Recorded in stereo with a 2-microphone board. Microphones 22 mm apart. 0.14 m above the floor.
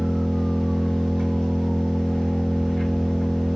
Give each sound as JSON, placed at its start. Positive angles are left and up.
{"t": 0.0, "sound": "an engine running", "side_deg": 55, "distance_m": 1.6}